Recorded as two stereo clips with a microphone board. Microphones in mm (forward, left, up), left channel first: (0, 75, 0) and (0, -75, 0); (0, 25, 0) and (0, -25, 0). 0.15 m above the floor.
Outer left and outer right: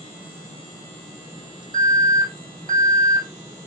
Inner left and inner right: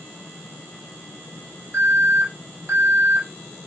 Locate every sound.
1.7 s an alarm: 60° right (ahead or behind), 4 m